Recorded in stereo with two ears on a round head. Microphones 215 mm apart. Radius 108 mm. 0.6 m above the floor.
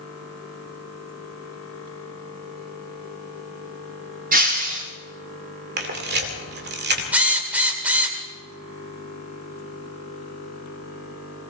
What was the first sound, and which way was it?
Breaking glass, 35° right (ahead or behind).